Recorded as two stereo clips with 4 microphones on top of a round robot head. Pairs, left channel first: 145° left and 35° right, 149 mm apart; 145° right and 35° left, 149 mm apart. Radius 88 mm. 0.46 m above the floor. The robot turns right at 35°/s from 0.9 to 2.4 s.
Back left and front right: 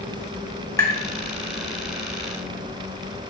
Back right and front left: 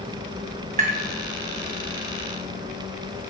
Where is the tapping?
75° left, 3 m.